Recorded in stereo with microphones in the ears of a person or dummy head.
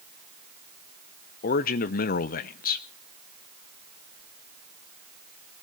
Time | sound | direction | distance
1.4 | a man speaking | 40° left (ahead or behind) | 0.8 m